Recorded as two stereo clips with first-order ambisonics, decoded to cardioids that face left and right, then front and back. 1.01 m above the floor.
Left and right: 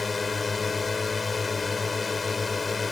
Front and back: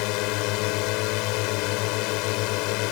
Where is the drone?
15° left.